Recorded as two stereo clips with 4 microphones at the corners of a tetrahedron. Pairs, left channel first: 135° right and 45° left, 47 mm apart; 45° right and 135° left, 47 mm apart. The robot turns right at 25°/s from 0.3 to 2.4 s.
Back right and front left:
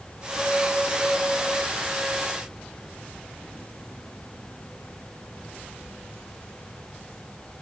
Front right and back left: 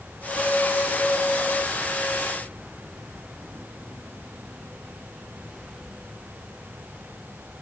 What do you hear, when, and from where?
Only background noise.